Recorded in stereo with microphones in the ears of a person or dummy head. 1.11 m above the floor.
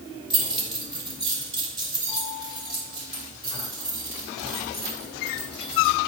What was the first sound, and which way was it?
Keys jangling, 30° right (ahead or behind).